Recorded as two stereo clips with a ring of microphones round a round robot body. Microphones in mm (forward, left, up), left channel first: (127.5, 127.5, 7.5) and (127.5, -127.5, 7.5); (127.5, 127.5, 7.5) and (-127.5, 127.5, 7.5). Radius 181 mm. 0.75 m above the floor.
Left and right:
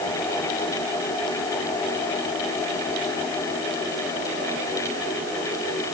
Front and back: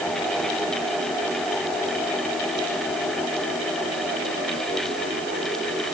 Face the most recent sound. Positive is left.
No sound to turn to.